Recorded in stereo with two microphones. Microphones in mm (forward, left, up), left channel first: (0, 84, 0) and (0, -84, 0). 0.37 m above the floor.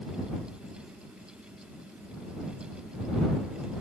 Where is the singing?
I don't hear singing.